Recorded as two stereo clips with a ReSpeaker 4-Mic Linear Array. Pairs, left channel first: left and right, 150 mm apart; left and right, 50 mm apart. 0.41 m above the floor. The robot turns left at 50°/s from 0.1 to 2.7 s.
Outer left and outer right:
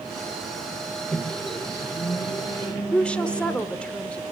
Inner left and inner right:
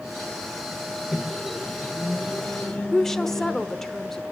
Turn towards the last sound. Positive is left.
turn(degrees=5)  # may be behind; listen again after turning